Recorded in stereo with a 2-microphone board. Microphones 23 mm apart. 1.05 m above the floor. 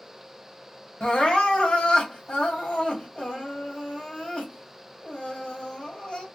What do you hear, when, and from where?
1.0 s crying: 60° left (ahead or behind), 1.6 m